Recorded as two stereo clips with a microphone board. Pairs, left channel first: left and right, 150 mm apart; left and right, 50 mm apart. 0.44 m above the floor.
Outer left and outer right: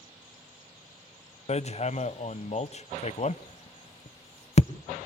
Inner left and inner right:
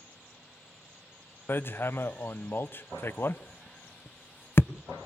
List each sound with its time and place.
1.5 s hammering: 45° left (ahead or behind), 0.5 m